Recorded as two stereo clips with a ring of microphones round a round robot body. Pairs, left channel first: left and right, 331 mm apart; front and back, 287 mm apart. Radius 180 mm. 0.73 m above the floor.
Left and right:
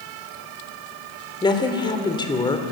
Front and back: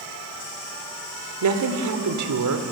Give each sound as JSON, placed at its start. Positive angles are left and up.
{"t": 1.4, "sound": "a woman speaking", "azimuth_deg": 165, "distance_m": 3.0}